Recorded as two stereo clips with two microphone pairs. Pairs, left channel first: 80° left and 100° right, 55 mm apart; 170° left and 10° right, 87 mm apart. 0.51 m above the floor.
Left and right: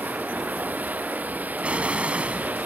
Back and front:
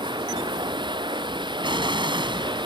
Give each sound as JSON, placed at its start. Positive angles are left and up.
{"t": 0.0, "sound": "running water", "azimuth_deg": -40}
{"t": 1.6, "sound": "an explosion", "azimuth_deg": -35}